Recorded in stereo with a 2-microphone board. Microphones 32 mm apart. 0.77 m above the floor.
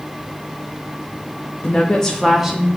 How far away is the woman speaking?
About 0.6 m.